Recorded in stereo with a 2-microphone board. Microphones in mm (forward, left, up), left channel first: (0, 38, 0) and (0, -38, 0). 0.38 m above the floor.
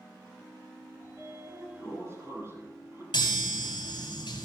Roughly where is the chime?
Left.